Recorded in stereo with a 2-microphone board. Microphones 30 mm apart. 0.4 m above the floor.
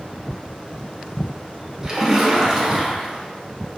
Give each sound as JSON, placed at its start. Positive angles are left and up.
{"t": 1.8, "sound": "a splash", "side_deg": -20, "distance_m": 0.6}